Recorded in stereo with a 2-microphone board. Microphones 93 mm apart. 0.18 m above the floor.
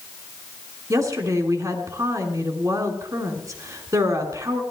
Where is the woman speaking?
40° right (ahead or behind), 2.5 m.